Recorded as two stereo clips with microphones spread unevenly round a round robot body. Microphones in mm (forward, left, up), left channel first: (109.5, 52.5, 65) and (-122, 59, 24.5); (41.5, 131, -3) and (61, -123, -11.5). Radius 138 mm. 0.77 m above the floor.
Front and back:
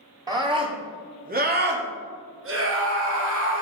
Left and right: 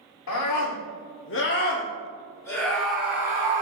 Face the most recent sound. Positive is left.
turn(degrees=-160)